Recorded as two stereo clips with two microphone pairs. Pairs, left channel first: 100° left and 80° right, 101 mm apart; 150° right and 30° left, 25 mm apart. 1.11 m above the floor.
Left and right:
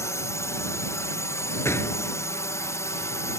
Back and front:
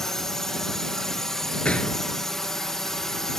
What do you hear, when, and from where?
0.0 s a drone: 145° left
1.6 s a gunshot: 165° left